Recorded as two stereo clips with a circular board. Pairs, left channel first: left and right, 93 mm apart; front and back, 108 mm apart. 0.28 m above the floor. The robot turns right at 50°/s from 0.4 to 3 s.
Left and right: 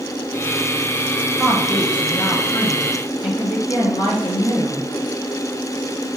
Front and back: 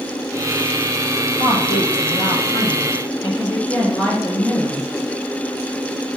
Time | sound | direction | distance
1.4 | a woman speaking | 5° right | 4 m